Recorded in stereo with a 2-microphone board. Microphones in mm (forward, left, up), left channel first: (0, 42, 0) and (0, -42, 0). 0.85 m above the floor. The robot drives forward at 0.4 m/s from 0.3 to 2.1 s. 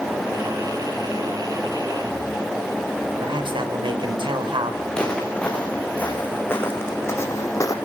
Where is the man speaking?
75° right (ahead or behind), 4 m.